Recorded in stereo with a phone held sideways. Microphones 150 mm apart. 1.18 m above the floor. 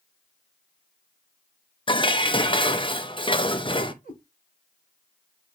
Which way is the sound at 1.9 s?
35° left (ahead or behind).